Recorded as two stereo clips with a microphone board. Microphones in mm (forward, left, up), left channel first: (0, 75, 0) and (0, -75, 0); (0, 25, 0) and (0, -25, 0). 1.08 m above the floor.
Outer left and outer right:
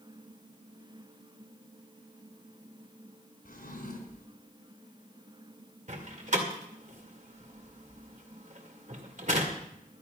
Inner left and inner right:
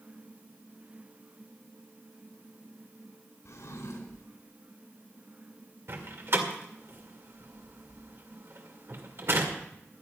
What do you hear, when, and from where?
3.5 s a drawer: 80° left, 3.5 m
5.9 s a door slam: 55° right (ahead or behind), 2 m